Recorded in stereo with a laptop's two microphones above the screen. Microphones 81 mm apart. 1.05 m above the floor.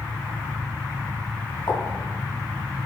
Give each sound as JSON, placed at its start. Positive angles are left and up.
{"t": 1.7, "sound": "a pop", "side_deg": 40, "distance_m": 2.5}